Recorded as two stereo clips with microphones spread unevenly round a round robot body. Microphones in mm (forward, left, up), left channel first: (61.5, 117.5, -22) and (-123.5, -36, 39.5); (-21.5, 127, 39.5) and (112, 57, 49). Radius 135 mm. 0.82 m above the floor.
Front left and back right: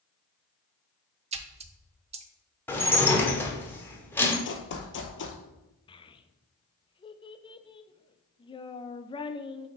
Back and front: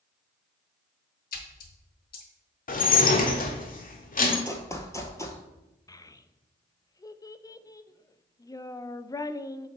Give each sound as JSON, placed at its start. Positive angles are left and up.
{"t": 1.3, "sound": "a splash", "azimuth_deg": 175, "distance_m": 0.6}
{"t": 2.7, "sound": "dishes clattering", "azimuth_deg": 120, "distance_m": 1.3}
{"t": 4.5, "sound": "running footsteps", "azimuth_deg": 80, "distance_m": 1.3}
{"t": 5.9, "sound": "a child speaking", "azimuth_deg": 90, "distance_m": 0.6}